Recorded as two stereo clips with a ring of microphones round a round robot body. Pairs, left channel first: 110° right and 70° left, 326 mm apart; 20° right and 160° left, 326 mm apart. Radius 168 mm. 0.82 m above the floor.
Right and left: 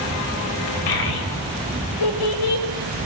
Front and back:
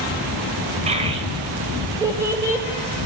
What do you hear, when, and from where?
0.9 s a child speaking: 130° right, 3.5 m; by 2.6 s 115° right, 4.5 m